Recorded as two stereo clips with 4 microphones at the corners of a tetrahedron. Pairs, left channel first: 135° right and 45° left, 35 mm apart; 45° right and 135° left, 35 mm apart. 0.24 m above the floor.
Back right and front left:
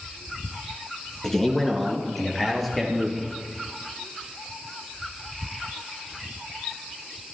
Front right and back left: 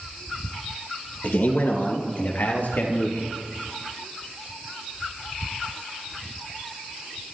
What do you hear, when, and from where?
1.2 s a man speaking: 60° right, 3 m; by 3.3 s 50° right, 5 m